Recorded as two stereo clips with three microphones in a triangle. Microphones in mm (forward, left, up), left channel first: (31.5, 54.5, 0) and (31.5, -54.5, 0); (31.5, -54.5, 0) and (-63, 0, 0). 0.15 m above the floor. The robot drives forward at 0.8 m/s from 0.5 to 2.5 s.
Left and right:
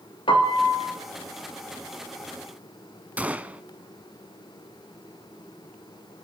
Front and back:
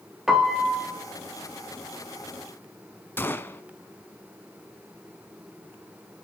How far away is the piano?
About 2.5 m.